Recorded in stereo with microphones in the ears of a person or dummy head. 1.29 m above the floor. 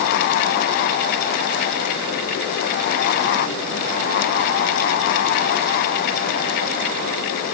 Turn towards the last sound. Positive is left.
No sound to turn to.